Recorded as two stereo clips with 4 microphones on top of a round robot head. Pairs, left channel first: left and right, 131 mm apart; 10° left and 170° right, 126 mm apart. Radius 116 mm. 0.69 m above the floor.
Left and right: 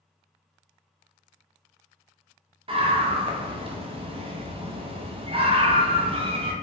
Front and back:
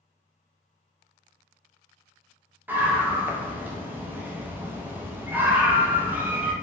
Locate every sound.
2.7 s a scream: 100° right, 0.8 m